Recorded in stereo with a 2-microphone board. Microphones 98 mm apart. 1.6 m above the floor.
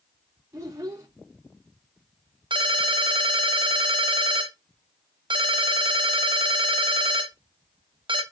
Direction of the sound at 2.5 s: 55° right (ahead or behind).